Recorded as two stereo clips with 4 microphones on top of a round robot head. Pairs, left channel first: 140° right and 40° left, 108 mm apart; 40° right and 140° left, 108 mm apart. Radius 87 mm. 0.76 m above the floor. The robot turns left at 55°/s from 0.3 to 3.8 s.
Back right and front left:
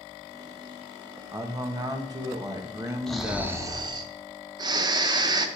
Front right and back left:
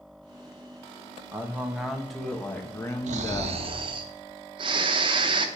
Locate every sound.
1.3 s a man speaking: 90° left, 1.2 m; by 3.6 s 35° right, 1.2 m
3.1 s snoring: 135° left, 0.7 m; by 5.5 s 95° left, 0.7 m